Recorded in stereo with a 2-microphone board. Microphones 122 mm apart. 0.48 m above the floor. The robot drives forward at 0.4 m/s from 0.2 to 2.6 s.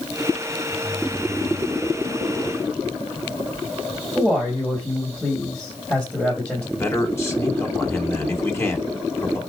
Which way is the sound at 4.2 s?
10° left (ahead or behind).